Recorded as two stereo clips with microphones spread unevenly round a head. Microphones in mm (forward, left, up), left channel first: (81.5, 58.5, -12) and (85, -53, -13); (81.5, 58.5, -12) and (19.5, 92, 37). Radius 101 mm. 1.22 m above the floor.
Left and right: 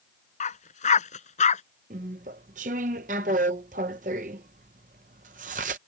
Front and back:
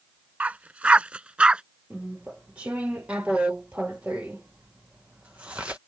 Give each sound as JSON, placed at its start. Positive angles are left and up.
{"t": 0.4, "sound": "a dog barking", "azimuth_deg": 95}
{"t": 1.9, "sound": "chewing", "azimuth_deg": -125}